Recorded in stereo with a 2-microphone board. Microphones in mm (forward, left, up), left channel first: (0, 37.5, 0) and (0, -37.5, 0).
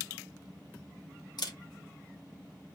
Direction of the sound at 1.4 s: 65° left (ahead or behind).